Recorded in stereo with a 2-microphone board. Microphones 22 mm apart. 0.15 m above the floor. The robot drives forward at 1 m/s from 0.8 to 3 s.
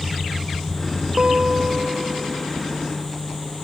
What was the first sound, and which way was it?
A guitar, 35° right (ahead or behind).